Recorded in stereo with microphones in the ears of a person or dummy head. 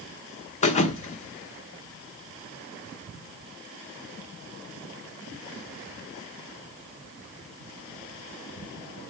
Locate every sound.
0.6 s a thud: 35° left (ahead or behind), 1.2 m